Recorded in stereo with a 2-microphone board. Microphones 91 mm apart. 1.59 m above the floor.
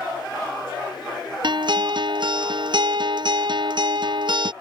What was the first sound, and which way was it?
A guitar, 60° right (ahead or behind).